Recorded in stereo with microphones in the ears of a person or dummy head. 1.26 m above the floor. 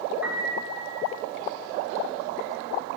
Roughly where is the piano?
Centre.